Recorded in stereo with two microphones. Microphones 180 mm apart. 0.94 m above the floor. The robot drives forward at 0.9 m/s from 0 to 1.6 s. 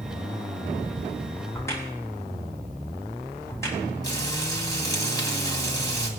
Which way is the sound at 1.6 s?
15° left (ahead or behind).